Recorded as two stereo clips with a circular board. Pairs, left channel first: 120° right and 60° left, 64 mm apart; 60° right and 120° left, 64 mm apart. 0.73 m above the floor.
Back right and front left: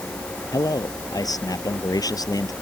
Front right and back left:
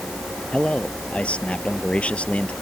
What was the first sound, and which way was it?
A man speaking, 130° right.